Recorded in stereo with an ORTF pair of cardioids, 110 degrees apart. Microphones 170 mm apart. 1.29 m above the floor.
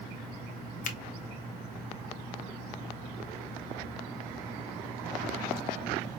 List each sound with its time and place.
0.8 s a finger snap: 50° left, 1.0 m